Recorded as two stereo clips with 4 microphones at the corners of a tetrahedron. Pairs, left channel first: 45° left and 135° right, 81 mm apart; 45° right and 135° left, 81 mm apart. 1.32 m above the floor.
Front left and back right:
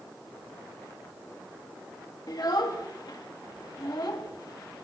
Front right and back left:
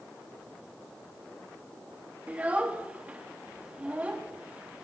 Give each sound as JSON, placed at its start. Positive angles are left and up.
{"t": 2.3, "sound": "a child speaking", "azimuth_deg": 65, "distance_m": 1.1}